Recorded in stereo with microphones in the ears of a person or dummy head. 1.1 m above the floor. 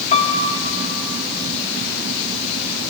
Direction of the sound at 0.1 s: 40° left (ahead or behind).